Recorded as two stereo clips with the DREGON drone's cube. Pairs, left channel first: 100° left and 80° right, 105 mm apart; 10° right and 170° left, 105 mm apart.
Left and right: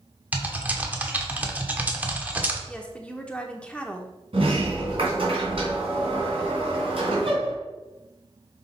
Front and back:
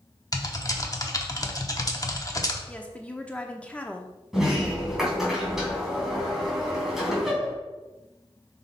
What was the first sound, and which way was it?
Typing on a keyboard, 20° right.